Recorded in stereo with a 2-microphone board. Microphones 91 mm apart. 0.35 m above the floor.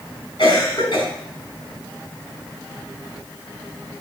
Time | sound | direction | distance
0.4 | a cough | 70° left (ahead or behind) | 3.5 m